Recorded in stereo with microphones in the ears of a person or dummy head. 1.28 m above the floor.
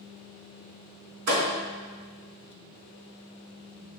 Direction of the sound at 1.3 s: 70° right (ahead or behind).